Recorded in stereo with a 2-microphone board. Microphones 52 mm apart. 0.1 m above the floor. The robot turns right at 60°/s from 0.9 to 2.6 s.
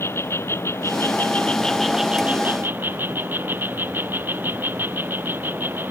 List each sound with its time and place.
0.0 s an insect: 125° left; by 5.9 s 135° right